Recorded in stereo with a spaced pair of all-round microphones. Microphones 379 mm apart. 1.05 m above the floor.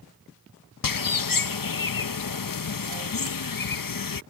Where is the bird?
60° left (ahead or behind).